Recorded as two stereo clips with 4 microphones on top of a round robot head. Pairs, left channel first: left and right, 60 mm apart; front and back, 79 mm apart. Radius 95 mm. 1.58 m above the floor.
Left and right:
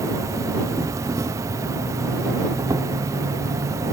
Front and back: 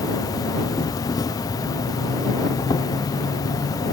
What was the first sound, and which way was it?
An insect, 50° right.